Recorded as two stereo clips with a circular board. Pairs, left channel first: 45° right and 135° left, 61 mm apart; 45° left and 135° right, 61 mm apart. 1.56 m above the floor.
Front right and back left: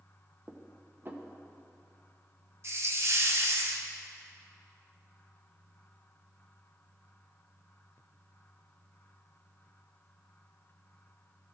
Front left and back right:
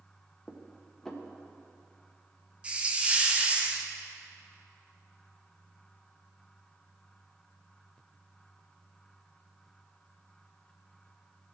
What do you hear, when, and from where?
0.5 s dishes clattering: 120° left, 0.7 m
2.6 s a hiss: 160° left, 0.6 m